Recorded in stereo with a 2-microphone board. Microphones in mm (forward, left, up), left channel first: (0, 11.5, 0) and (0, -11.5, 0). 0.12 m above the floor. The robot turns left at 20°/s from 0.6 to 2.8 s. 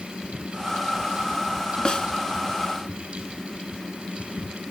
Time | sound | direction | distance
1.9 | a snare drum | 30° left (ahead or behind) | 0.8 m